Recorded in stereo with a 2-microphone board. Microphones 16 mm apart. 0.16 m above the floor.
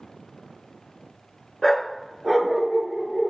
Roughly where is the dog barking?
Left.